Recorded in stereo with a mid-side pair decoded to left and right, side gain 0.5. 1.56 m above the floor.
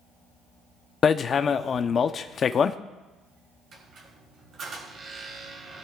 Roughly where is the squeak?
Ahead right.